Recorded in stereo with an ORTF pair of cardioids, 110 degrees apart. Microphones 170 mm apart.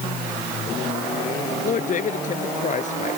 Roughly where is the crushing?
No crushing in this recording.